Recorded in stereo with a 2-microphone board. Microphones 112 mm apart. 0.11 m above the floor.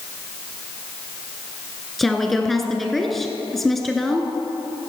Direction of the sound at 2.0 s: Centre (ahead or behind).